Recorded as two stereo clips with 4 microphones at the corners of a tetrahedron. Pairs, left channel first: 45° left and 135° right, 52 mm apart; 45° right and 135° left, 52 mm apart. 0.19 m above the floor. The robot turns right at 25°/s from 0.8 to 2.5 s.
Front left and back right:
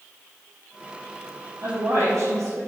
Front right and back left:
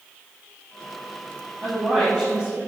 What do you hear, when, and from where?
1.6 s a woman speaking: 170° right, 4 m; by 2.6 s 150° right, 4 m